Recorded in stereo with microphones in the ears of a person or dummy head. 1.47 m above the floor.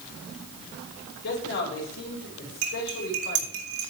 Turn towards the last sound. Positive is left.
turn(degrees=-60)  # may be behind; listen again after turning